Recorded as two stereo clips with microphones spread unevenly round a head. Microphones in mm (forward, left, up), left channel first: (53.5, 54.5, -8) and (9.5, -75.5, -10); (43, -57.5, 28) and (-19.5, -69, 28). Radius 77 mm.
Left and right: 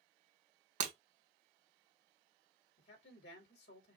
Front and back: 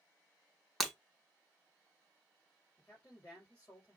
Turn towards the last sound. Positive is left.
turn(degrees=85)